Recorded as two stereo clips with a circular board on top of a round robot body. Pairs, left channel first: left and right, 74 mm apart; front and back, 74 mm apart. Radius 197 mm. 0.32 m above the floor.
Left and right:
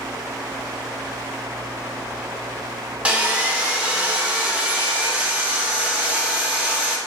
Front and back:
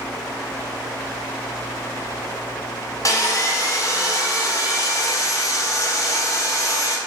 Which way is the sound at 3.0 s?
20° right.